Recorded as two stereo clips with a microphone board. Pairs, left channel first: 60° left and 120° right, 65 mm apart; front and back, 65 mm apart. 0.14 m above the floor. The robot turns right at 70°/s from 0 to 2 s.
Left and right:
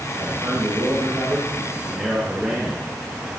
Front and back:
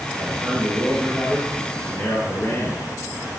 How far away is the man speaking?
About 2.5 m.